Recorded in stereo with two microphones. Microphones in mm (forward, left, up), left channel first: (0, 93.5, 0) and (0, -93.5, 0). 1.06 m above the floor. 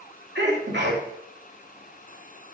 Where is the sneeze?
75° right (ahead or behind), 2.5 m.